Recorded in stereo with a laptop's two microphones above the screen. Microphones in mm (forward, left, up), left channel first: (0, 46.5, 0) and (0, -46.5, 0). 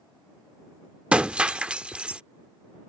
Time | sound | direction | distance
1.1 | breaking glass | 10° right (ahead or behind) | ?